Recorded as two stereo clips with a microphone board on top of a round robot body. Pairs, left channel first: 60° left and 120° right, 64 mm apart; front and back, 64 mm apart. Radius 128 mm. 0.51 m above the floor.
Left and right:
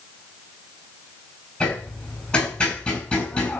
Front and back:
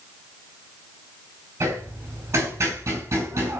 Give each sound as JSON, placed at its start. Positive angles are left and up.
{"t": 1.6, "sound": "hammering", "azimuth_deg": 130, "distance_m": 6.5}